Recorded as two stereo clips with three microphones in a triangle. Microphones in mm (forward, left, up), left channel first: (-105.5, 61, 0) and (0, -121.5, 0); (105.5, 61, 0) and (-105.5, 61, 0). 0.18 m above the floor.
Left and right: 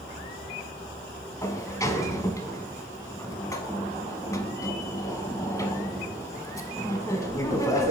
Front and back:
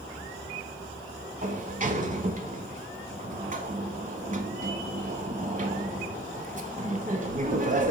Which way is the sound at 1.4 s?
175° right.